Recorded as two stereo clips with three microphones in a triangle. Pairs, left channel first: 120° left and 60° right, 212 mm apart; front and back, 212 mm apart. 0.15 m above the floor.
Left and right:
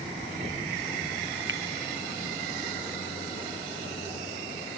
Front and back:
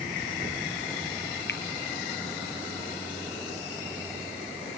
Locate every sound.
1.5 s a finger snap: 35° right